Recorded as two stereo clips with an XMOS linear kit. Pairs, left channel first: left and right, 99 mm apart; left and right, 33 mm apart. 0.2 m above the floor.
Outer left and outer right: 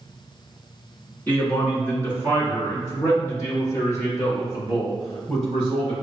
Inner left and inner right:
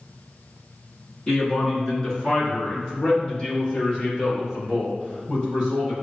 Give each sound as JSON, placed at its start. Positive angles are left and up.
{"t": 1.3, "sound": "a man speaking", "side_deg": 15, "distance_m": 1.8}